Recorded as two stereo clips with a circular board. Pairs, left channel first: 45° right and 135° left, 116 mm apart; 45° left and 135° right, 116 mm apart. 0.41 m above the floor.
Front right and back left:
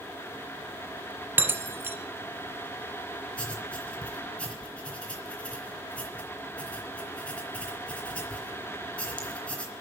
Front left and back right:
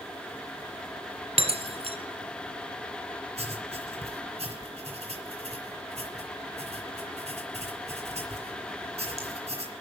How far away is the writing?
About 3 m.